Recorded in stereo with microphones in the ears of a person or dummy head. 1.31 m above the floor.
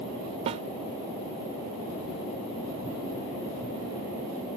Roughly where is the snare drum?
Right.